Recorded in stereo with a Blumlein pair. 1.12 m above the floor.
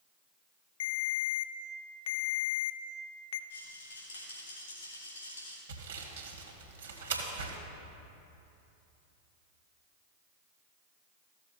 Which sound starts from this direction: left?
A rattle, at 3.5 s.